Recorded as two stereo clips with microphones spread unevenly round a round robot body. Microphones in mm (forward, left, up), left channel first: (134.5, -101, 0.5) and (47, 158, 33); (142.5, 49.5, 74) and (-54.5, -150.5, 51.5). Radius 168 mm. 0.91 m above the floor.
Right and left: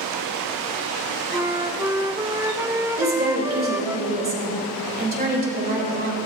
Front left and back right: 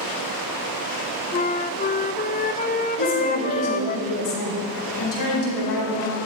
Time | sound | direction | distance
1.3 | a flute | 25° left | 0.5 m
3.0 | a woman speaking | 50° left | 4.5 m